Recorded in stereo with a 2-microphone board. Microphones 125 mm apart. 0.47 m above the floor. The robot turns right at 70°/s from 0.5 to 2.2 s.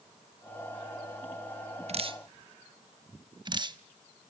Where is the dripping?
55° right (ahead or behind), 0.6 m; by 3.8 s 35° right (ahead or behind), 0.6 m.